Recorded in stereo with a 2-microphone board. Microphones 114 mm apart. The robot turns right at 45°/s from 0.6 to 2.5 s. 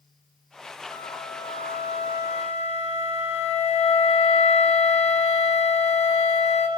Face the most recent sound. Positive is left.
turn(degrees=105)